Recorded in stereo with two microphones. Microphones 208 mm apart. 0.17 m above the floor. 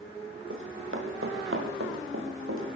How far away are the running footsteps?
About 5.5 m.